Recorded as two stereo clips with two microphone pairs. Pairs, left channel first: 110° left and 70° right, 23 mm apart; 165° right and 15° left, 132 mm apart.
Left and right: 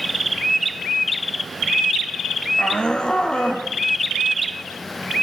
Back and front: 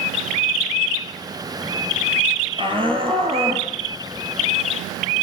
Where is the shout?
65° left, 3.5 m.